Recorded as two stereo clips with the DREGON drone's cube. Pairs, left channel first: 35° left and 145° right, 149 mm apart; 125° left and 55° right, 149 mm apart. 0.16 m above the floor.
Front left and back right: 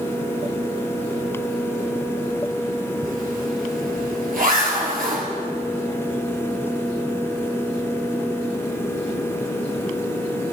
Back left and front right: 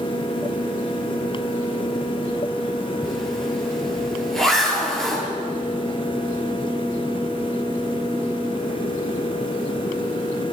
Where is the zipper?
150° right, 2 m.